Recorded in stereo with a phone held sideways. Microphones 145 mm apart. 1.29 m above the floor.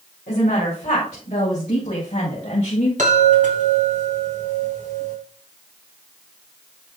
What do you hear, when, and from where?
0.3 s a woman speaking: 60° left (ahead or behind), 5 m; by 2.9 s 55° left (ahead or behind), 7 m
3.0 s a chime: 65° right (ahead or behind), 3 m